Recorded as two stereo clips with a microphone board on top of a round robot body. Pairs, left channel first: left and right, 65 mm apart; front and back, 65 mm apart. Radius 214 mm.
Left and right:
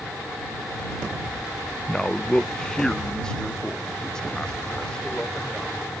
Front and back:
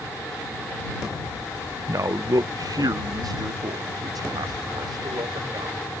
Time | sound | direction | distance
1.9 | a man speaking | 165° left | ?